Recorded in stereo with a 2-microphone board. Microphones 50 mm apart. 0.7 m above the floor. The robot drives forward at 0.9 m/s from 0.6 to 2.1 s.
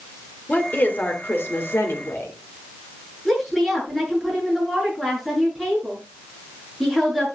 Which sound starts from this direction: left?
A woman speaking, at 0.5 s.